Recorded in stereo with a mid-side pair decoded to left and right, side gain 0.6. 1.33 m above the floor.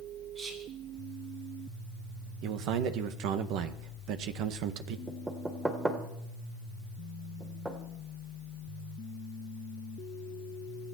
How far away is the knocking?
About 3 m.